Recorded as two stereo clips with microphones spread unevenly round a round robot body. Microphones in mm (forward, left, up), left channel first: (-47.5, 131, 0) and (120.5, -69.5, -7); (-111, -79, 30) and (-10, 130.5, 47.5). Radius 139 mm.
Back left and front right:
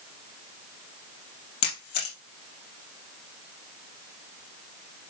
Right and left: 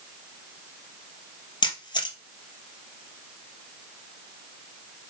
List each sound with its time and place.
1.6 s a camera shutter: 170° left, 2 m